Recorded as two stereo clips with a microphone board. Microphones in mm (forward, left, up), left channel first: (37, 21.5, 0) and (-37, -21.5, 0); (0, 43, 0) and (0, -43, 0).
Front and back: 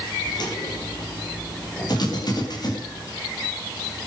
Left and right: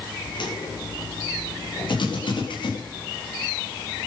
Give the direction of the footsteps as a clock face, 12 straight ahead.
10 o'clock.